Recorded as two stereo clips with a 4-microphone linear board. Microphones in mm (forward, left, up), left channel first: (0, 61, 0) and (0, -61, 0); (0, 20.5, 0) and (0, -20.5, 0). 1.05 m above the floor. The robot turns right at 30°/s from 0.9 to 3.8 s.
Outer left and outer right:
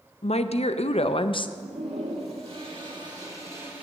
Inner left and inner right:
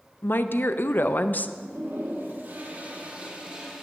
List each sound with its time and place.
0.2 s a woman speaking: 55° left (ahead or behind), 0.5 m; by 1.5 s 40° left (ahead or behind), 0.5 m
1.6 s a toilet flushing: 80° right, 1.9 m; by 3.8 s 15° right, 1.9 m